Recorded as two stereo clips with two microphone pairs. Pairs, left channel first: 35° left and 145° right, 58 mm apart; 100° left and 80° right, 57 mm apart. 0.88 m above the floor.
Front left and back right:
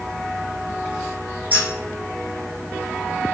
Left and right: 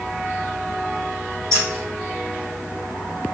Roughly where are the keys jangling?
Right.